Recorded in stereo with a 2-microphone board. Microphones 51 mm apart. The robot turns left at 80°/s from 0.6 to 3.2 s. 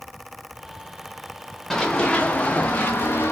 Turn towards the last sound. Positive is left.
turn(degrees=40)  # may be behind; listen again after turning